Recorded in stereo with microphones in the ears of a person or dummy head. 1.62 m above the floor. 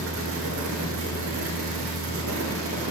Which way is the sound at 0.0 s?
70° right (ahead or behind).